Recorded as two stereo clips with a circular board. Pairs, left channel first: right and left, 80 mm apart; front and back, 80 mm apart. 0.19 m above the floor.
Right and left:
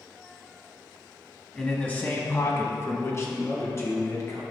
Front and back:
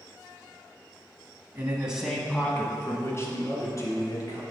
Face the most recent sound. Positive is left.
turn(degrees=-35)